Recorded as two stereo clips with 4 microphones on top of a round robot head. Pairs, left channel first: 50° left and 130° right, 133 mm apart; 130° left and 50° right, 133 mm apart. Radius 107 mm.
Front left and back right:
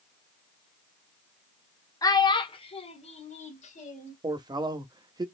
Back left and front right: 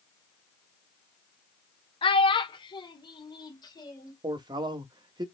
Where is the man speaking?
90° right, 0.9 m.